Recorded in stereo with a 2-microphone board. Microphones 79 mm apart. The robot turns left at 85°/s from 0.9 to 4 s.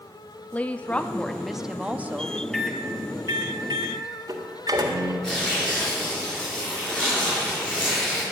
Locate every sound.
0.5 s a woman speaking: 15° left (ahead or behind), 0.6 m; by 2.4 s 25° right (ahead or behind), 0.6 m
2.5 s a microwave: 10° left (ahead or behind), 1.8 m; by 5.1 s 55° right (ahead or behind), 1.8 m
5.2 s tearing paper: 10° left (ahead or behind), 6.5 m